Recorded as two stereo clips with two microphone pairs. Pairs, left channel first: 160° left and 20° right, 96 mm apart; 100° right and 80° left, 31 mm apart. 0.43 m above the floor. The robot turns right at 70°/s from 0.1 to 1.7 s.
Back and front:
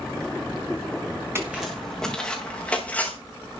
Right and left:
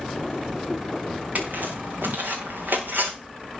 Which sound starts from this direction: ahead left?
Footsteps, at 1.4 s.